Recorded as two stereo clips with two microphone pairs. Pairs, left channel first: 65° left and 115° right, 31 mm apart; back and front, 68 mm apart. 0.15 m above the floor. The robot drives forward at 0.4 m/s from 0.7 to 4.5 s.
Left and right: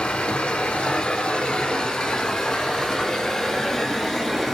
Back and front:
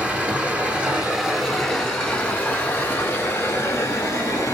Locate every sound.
0.0 s running water: 70° left, 1.1 m; by 4.5 s 150° left, 1.6 m